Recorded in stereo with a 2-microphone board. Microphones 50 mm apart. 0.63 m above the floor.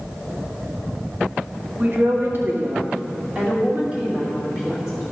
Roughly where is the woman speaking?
Right.